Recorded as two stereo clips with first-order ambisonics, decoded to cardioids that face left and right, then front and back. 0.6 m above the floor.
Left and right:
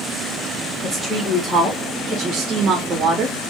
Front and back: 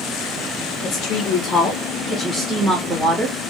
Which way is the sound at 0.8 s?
10° left.